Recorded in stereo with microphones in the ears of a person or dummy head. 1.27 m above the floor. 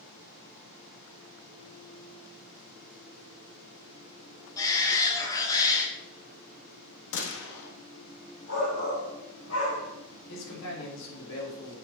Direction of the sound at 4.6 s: 25° left (ahead or behind).